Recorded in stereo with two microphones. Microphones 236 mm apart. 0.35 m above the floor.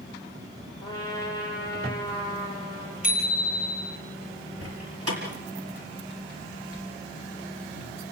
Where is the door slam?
80° right, 5 m.